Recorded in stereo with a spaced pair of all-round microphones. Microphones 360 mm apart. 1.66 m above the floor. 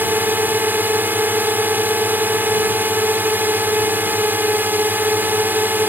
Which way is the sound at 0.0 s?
5° right (ahead or behind).